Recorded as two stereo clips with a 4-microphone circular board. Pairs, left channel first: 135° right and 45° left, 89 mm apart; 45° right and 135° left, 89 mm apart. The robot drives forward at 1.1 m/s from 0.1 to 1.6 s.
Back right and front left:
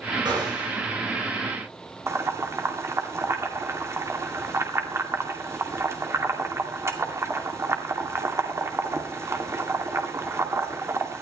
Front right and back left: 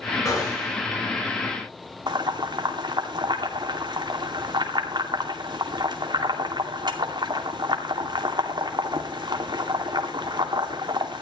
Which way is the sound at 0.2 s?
10° left.